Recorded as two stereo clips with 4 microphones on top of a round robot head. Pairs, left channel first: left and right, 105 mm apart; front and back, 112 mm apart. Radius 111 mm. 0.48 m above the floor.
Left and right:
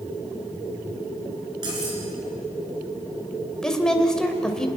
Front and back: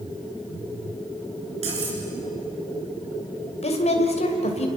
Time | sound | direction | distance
1.6 | cutlery clinking | 145° right | 5 m
3.6 | a woman speaking | 5° left | 2.5 m